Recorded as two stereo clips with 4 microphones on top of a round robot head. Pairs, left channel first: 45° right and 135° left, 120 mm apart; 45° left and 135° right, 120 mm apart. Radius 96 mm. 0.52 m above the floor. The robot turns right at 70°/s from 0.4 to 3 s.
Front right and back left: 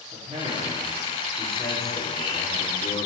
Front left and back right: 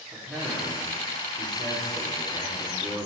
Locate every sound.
0.1 s a man speaking: 150° left, 2 m; by 3.1 s 25° right, 2 m